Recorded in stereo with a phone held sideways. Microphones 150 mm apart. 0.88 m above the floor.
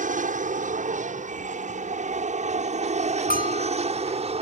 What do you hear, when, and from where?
0.0 s an aircraft: 60° right (ahead or behind); by 4.4 s 45° right (ahead or behind)
3.3 s a bell: 70° left (ahead or behind)